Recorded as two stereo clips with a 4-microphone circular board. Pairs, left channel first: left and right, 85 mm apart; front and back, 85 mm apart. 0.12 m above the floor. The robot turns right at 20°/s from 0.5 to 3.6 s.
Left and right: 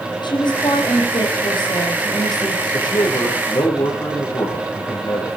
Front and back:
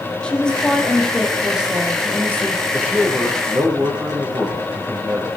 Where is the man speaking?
110° left, 7 m; by 5.4 s 125° left, 7 m.